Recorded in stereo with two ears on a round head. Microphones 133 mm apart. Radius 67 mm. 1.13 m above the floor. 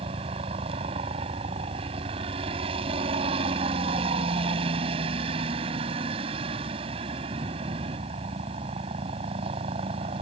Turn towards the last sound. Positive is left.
turn(degrees=-35)  # may be behind; listen again after turning